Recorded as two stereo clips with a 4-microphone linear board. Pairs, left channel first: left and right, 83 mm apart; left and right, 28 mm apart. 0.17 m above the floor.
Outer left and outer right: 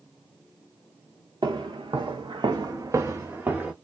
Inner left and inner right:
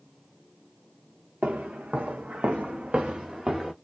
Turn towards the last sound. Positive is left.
turn(degrees=-15)  # may be behind; listen again after turning